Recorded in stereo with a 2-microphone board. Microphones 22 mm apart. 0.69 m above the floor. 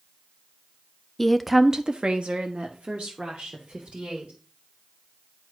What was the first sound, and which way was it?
A woman speaking, 15° left (ahead or behind).